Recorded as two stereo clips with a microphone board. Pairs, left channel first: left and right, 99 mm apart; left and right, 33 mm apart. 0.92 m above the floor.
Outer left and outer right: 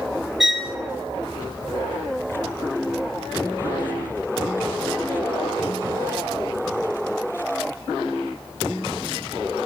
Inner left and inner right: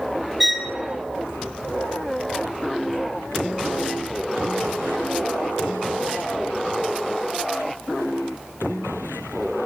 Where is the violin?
5° right (ahead or behind), 0.7 m.